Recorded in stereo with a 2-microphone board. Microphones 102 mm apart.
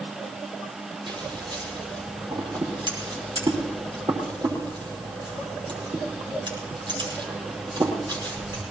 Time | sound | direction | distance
1.1 | scissors | 45° right (ahead or behind) | 5 m